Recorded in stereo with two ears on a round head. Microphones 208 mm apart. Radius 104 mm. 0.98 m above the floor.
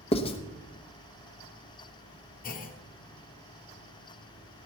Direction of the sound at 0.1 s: 25° left (ahead or behind).